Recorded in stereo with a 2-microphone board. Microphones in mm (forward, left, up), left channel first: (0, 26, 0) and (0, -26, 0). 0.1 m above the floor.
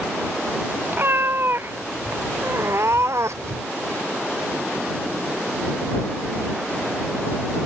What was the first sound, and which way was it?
A cat meowing, 45° right (ahead or behind).